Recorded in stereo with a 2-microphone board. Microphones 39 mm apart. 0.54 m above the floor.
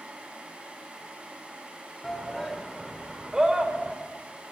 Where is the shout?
10° left (ahead or behind), 1.8 m; by 4.0 s 30° right (ahead or behind), 2 m.